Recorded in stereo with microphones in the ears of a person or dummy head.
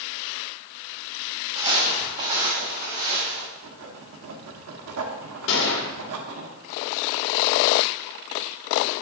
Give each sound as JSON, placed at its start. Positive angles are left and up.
{"t": 1.6, "sound": "footsteps", "side_deg": -30, "distance_m": 2.0}
{"t": 3.5, "sound": "writing", "side_deg": -80, "distance_m": 1.0}
{"t": 5.5, "sound": "a gunshot", "side_deg": 65, "distance_m": 1.4}